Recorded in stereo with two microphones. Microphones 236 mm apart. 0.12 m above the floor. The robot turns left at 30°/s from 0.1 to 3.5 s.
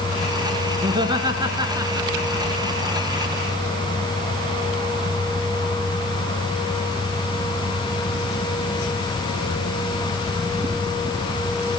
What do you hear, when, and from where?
0.8 s laughter: 20° right (ahead or behind), 1.1 m; by 2.5 s 10° right (ahead or behind), 1.1 m